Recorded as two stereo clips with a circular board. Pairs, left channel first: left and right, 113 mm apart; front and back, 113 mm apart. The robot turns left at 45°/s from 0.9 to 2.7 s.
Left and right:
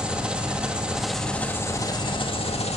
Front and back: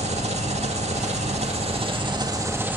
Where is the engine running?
170° right, 2.0 m; by 2.8 s 110° left, 2.0 m.